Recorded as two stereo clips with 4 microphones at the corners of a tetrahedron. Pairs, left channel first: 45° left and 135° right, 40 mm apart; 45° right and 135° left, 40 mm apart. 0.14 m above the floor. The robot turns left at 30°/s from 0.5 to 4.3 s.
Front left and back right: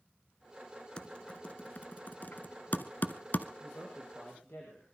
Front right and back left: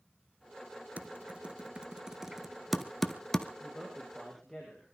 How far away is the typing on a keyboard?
About 1.0 m.